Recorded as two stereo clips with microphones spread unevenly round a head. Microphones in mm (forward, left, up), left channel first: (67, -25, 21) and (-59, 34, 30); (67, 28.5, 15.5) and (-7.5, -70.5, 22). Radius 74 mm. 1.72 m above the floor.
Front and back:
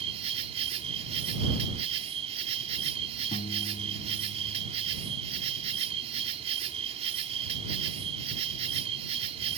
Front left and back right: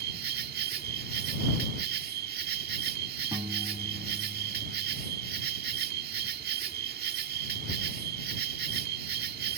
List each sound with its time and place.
0.0 s an insect: 155° right
3.3 s a piano: 70° right